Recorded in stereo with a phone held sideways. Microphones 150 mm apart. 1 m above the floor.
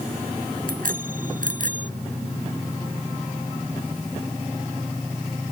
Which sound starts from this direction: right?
A bicycle bell, at 0.7 s.